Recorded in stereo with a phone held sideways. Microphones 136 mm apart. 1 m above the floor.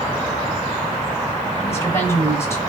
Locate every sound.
1.6 s a woman speaking: 20° left (ahead or behind), 4 m